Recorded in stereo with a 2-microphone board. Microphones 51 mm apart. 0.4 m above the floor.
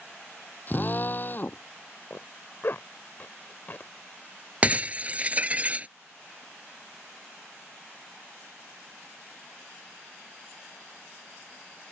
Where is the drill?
40° left (ahead or behind).